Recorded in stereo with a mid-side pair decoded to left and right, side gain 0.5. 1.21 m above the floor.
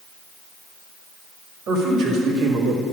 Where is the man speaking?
65° right, 2.5 m; by 2.8 s 70° right, 1.9 m.